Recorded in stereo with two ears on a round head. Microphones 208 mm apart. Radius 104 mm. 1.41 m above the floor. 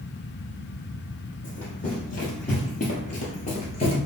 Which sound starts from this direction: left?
Running footsteps, at 1.4 s.